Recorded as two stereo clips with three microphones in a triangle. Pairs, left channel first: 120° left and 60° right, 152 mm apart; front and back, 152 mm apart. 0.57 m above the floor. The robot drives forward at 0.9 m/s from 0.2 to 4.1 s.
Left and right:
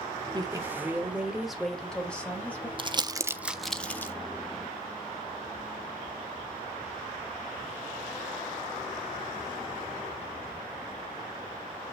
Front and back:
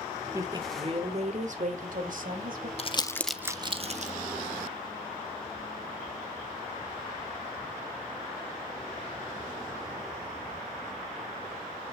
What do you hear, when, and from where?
0.3 s a woman speaking: 110° right, 1.1 m; by 2.7 s 160° right, 2.5 m
2.8 s crumpling: 20° right, 0.7 m; by 4.1 s 165° right, 0.9 m